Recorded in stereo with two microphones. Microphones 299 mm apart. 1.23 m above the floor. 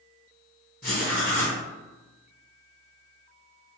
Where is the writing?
30° left (ahead or behind), 1.2 m.